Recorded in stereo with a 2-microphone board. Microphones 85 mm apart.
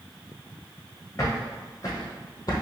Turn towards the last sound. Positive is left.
turn(degrees=45)  # may be behind; listen again after turning